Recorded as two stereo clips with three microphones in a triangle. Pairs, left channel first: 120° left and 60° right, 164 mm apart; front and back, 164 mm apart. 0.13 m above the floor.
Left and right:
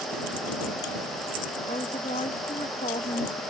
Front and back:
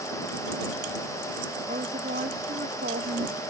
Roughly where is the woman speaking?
Behind.